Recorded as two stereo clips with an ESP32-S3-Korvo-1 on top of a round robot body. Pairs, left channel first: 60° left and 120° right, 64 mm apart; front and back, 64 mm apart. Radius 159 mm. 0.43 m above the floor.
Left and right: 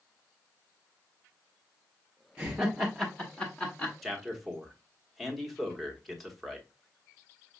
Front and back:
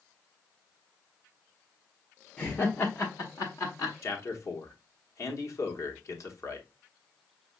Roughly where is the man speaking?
Ahead right.